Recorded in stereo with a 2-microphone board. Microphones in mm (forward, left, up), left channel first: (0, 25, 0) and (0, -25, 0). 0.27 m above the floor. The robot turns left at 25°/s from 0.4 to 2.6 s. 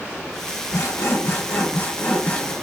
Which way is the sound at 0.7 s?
70° left.